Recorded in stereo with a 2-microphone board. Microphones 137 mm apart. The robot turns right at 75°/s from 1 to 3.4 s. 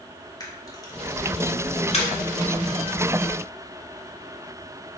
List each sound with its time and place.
0.4 s a camera shutter: 30° left (ahead or behind), 1.9 m; by 2.1 s 45° left (ahead or behind), 1.9 m